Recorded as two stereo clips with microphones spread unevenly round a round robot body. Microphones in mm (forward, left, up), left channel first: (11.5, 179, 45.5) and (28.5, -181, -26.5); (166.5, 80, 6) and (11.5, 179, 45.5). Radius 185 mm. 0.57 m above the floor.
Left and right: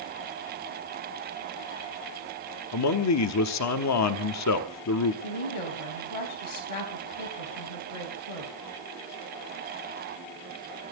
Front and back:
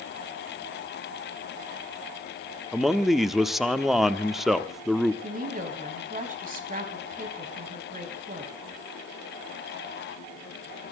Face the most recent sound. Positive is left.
turn(degrees=105)